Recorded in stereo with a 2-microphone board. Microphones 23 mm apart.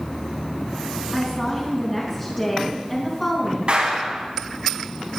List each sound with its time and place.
1.1 s a woman speaking: 20° left (ahead or behind), 3.5 m
3.7 s a clap: 50° right (ahead or behind), 4.5 m